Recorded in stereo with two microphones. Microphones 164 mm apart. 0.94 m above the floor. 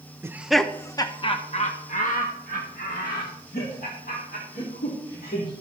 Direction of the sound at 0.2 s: 15° right (ahead or behind).